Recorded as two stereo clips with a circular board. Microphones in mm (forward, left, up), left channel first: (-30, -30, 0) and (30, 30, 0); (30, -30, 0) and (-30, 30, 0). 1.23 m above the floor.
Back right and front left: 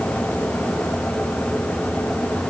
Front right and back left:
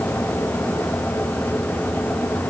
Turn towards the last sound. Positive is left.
No sound to turn to.